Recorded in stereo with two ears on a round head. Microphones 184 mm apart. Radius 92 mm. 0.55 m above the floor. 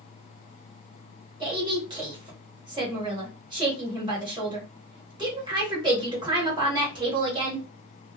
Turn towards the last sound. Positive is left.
turn(degrees=-25)  # may be behind; listen again after turning